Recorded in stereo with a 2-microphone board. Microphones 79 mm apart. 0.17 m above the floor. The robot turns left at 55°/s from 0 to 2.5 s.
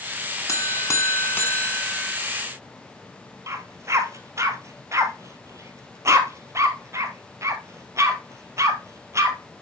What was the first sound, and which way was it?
A buzzer, 90° left.